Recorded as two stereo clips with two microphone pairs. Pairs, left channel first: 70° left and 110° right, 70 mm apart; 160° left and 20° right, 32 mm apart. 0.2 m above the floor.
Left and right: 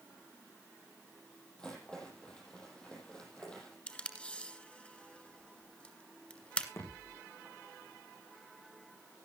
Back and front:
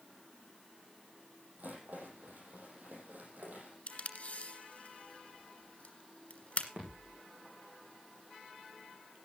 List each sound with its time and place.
1.6 s a rattle: 10° right, 7 m
3.9 s tape being pulled: 135° left, 2 m
6.8 s a thud: 25° left, 7.5 m